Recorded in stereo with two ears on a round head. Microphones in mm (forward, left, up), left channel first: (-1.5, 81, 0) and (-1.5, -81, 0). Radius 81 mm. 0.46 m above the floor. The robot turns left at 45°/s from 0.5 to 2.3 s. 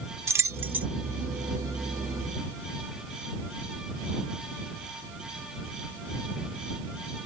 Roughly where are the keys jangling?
Centre.